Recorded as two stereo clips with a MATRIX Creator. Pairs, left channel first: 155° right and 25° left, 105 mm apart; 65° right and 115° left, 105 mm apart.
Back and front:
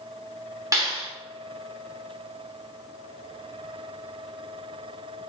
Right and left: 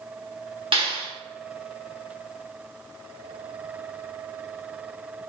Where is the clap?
80° left, 2.5 m.